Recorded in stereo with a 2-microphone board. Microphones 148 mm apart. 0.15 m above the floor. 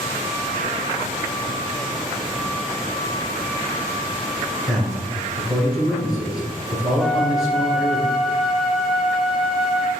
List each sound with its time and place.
4.7 s a man speaking: 5° right (ahead or behind), 1.7 m
7.0 s a flute: centre (ahead or behind), 0.7 m